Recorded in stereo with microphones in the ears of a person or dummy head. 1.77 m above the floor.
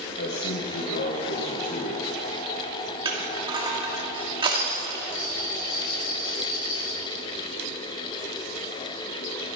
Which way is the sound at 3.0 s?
20° right (ahead or behind).